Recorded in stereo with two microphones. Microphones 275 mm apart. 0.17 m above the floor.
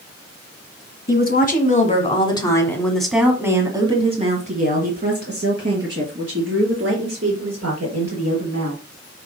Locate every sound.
1.1 s a woman speaking: 35° left (ahead or behind), 1.7 m; by 8.8 s 60° right (ahead or behind), 3.5 m